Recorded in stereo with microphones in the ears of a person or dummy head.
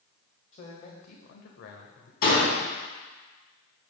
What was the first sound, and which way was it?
A man speaking, 40° left (ahead or behind).